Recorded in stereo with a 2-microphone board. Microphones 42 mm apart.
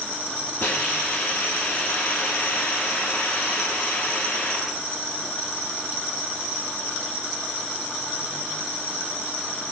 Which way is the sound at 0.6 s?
75° left (ahead or behind).